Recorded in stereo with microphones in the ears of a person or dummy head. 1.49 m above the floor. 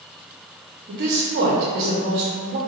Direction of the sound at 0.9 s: 55° right (ahead or behind).